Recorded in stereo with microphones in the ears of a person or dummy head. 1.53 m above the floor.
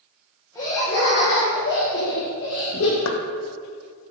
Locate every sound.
0.6 s laughter: 20° left (ahead or behind), 1.3 m; by 3.0 s 85° left, 2.5 m
3.0 s knocking: 85° left, 0.7 m